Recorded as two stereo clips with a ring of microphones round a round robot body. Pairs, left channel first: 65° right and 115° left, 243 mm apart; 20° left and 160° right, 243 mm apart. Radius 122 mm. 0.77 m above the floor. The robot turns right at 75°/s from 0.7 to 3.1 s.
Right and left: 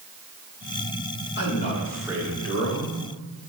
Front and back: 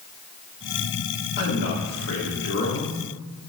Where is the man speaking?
25° right, 2 m; by 3.0 s 95° left, 2 m.